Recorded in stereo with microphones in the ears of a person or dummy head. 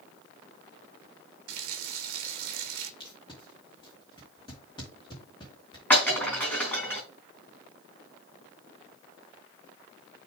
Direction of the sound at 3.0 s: 20° left (ahead or behind).